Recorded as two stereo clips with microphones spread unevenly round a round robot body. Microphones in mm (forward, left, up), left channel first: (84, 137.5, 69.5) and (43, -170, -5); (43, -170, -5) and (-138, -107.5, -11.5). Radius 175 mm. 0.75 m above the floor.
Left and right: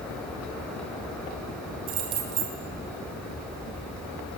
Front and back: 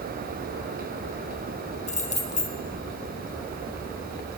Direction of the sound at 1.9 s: 70° right.